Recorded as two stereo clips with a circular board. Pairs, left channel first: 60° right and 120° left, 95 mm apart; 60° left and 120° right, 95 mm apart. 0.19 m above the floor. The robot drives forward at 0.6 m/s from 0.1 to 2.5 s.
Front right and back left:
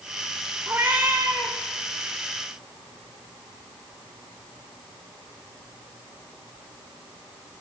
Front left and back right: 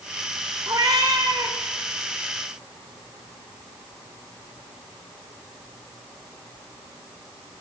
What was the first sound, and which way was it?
A cat meowing, 170° right.